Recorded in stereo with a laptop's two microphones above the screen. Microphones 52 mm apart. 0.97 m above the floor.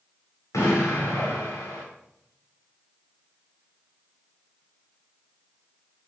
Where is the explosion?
80° left, 2.5 m.